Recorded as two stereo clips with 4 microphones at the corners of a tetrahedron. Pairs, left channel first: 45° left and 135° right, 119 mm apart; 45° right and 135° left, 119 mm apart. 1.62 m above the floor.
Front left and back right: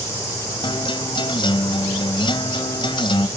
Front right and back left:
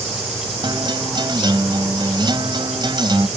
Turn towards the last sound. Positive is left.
turn(degrees=90)